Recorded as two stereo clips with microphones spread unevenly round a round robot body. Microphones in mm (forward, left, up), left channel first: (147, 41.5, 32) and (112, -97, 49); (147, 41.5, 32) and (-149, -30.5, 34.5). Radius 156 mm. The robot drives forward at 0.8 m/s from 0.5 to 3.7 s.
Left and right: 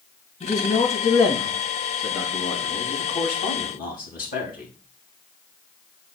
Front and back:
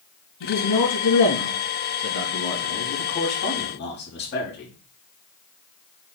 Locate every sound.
0.4 s a man speaking: 40° left, 5 m; by 4.7 s 70° left, 3.5 m